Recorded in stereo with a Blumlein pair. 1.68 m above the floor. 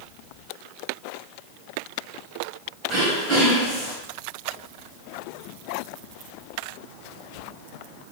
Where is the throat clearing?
20° right, 3.5 m.